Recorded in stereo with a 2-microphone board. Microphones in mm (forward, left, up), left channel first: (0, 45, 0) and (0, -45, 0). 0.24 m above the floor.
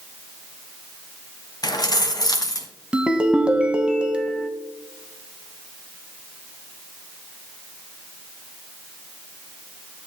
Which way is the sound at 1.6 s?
50° left (ahead or behind).